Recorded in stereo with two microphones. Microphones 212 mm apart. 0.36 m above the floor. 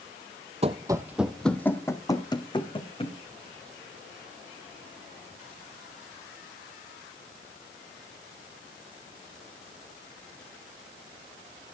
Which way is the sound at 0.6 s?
30° right (ahead or behind).